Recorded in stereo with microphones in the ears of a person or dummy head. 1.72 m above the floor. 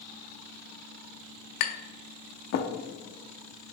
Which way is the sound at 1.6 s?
65° left (ahead or behind).